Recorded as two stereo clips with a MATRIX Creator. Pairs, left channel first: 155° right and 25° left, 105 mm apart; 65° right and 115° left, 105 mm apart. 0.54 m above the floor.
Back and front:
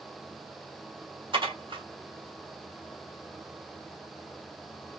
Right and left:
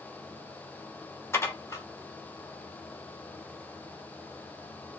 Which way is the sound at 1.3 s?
5° right.